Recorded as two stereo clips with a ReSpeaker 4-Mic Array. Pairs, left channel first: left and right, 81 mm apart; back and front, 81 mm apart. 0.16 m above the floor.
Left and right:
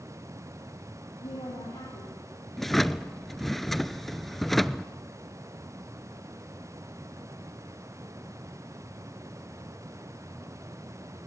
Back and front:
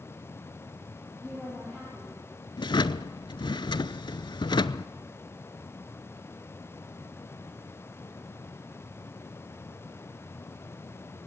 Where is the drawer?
175° left, 0.6 m.